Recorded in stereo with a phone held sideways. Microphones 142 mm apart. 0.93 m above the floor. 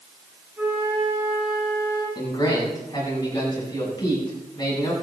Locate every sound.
0.6 s a flute: 10° right (ahead or behind), 6.5 m
2.1 s a man speaking: 25° left (ahead or behind), 7.5 m